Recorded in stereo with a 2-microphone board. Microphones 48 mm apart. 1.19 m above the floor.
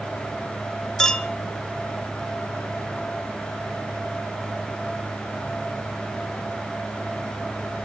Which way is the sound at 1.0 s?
10° left (ahead or behind).